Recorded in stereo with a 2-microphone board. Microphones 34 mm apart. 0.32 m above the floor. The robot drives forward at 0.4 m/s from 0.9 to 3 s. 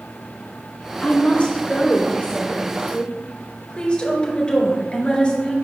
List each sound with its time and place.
1.0 s a woman speaking: 30° left (ahead or behind), 3 m; by 5.5 s 25° left (ahead or behind), 4 m